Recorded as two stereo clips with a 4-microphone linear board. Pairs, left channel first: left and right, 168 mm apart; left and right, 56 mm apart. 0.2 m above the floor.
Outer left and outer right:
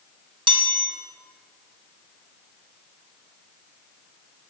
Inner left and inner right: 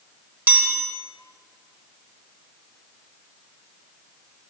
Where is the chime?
30° right (ahead or behind), 1.9 m.